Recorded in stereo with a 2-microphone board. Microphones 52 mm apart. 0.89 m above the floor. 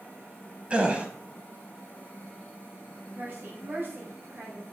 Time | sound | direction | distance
0.7 | a gasp | 25° right (ahead or behind) | 1.0 m
3.1 | a woman speaking | 50° right (ahead or behind) | 4 m